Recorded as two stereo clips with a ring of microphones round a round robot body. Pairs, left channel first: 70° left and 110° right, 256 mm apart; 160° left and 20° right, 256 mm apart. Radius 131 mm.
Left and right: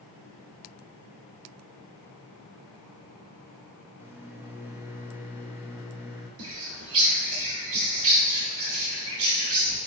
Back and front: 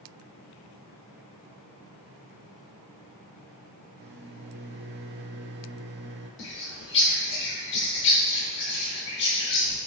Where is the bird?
150° right, 1.0 m.